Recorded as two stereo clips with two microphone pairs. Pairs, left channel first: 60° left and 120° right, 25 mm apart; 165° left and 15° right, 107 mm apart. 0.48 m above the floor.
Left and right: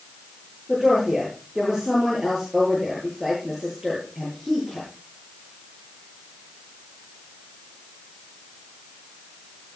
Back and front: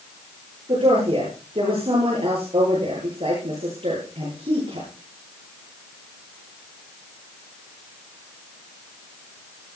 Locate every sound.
0.7 s a woman speaking: 35° right, 10 m